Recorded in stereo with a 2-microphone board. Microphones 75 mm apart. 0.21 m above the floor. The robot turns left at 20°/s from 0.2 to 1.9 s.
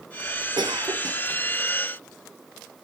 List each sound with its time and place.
0.6 s a cough: 70° right (ahead or behind); by 1.2 s 60° right (ahead or behind)